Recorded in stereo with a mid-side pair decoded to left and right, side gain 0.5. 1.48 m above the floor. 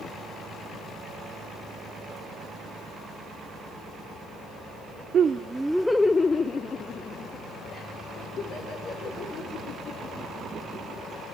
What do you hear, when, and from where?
5.1 s laughter: 50° right, 0.5 m; by 11.4 s 60° left, 4 m